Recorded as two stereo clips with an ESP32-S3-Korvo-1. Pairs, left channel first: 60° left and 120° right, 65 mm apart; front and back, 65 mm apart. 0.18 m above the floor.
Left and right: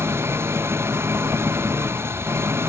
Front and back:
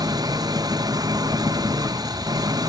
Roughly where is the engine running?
Behind.